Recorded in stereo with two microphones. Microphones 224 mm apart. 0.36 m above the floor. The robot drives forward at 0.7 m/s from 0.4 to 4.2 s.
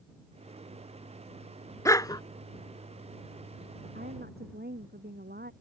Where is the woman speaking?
45° right (ahead or behind).